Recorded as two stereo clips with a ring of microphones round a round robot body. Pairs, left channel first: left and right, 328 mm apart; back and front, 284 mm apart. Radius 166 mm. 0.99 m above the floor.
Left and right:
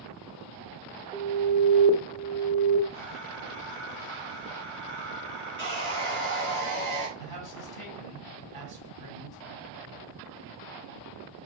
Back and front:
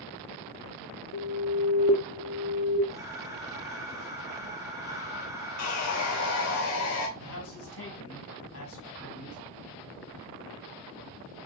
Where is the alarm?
165° left, 1.1 m.